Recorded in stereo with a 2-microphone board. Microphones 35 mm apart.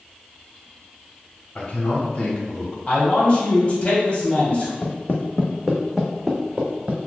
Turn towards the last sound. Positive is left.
turn(degrees=-30)  # may be behind; listen again after turning